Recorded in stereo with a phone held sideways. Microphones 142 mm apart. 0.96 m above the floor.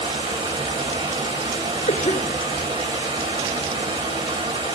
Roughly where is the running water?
Right.